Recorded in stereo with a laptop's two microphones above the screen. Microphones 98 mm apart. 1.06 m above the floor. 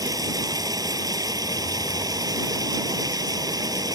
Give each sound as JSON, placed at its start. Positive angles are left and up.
{"t": 0.0, "sound": "running water", "side_deg": -45}